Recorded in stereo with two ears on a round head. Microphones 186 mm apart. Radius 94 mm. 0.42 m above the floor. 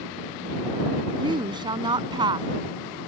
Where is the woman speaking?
25° right (ahead or behind).